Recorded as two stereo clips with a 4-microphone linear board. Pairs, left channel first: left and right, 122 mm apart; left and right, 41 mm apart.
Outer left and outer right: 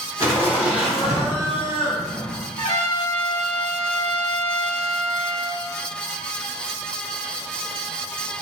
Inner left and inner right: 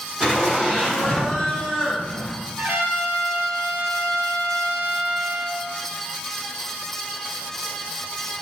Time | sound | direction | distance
0.2 | laughter | 25° right (ahead or behind) | 1.4 m
2.6 | a trumpet | 70° right (ahead or behind) | 0.5 m